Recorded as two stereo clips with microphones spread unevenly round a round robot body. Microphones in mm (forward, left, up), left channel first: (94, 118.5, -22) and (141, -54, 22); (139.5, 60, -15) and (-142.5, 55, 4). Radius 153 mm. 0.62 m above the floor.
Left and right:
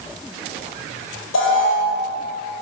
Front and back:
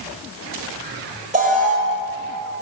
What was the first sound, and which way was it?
An alarm, 115° left.